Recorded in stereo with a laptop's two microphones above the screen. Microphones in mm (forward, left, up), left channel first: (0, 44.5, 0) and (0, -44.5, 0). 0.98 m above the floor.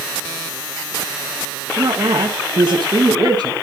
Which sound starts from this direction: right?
A woman speaking, at 1.8 s.